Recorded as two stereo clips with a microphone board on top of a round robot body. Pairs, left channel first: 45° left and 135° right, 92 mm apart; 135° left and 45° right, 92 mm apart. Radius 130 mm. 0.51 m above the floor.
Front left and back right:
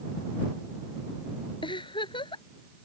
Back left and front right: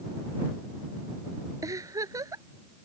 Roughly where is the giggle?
Ahead.